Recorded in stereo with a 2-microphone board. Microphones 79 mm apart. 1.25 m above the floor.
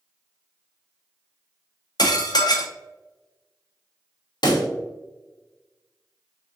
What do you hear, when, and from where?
2.0 s dishes clattering: 65° left (ahead or behind), 0.7 m
4.4 s a pop: 70° left (ahead or behind), 0.8 m